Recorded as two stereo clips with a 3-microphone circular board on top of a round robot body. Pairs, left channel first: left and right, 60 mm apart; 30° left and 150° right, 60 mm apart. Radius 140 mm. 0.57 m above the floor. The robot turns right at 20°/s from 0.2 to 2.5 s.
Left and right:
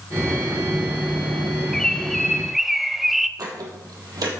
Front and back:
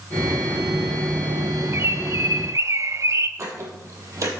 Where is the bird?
170° left, 0.9 m; by 3.3 s 175° right, 0.9 m.